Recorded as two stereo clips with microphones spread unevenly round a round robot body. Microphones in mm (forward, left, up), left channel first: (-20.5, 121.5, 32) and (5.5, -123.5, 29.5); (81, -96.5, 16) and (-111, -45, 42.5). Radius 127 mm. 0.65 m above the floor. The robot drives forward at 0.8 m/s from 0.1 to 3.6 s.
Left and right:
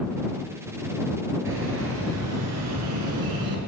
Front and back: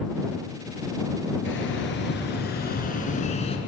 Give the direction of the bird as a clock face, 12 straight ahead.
1 o'clock.